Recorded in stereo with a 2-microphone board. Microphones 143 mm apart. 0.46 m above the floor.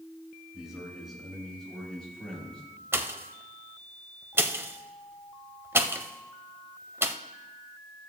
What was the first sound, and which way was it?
A man speaking, 5° right (ahead or behind).